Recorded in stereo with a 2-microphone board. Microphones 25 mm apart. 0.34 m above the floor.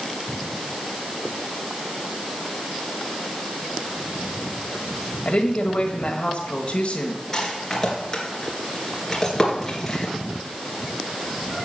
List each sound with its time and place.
5.2 s a woman speaking: 45° left (ahead or behind), 1.5 m
7.3 s a rattle: 25° left (ahead or behind), 2.5 m